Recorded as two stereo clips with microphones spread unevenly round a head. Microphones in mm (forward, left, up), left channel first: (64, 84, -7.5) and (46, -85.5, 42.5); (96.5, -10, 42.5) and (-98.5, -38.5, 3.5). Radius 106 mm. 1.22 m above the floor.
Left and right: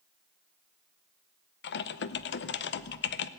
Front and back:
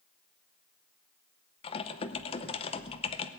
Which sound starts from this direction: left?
Typing on a keyboard, at 1.6 s.